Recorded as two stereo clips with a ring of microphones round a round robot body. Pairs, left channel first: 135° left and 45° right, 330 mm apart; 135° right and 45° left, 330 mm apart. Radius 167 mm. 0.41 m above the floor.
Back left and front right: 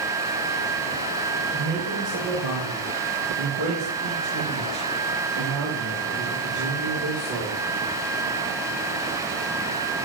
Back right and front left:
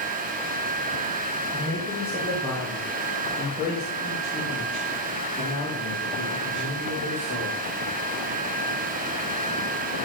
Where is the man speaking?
40° right, 6 m; by 7.6 s 85° right, 5.5 m.